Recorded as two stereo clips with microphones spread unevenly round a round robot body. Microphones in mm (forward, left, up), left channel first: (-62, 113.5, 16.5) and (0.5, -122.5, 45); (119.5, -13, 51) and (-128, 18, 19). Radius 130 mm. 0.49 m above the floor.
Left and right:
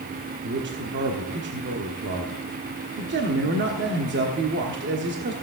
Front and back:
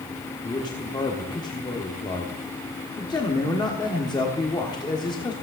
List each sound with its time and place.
0.4 s a man speaking: 80° right, 1.4 m